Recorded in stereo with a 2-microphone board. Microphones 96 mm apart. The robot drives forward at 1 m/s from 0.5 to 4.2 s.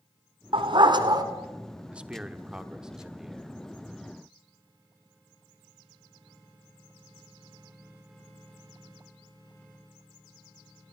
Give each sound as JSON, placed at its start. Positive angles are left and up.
{"t": 0.5, "sound": "a dog barking", "side_deg": -65, "distance_m": 1.6}
{"t": 1.9, "sound": "a man speaking", "side_deg": -10, "distance_m": 0.9}